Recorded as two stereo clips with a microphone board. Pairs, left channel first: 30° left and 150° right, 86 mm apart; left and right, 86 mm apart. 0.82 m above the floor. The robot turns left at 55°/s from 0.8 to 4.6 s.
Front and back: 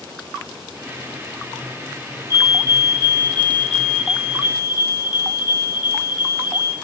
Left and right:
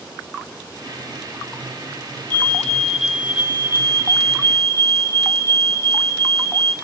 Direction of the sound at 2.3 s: 25° left.